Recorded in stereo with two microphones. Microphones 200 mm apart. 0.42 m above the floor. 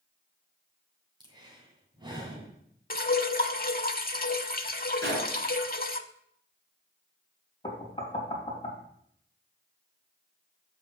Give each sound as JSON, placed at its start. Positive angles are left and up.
{"t": 1.2, "sound": "breathing", "side_deg": -20, "distance_m": 2.5}
{"t": 2.9, "sound": "dripping", "side_deg": 50, "distance_m": 0.7}
{"t": 5.0, "sound": "a gunshot", "side_deg": -65, "distance_m": 5.5}
{"t": 7.6, "sound": "knocking", "side_deg": 30, "distance_m": 2.5}